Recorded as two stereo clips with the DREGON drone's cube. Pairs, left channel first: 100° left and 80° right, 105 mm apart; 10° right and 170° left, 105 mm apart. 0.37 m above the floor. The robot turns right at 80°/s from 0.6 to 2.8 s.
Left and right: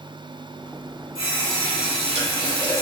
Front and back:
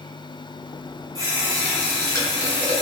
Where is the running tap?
140° right, 1.6 m; by 2.8 s 10° right, 1.6 m.